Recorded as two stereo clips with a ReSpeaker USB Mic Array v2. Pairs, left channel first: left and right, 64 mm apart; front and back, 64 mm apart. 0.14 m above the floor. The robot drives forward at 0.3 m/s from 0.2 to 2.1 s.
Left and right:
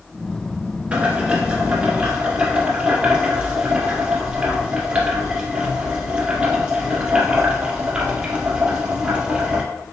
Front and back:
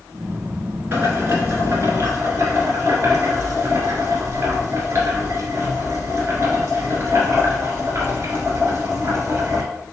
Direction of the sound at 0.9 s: 145° right.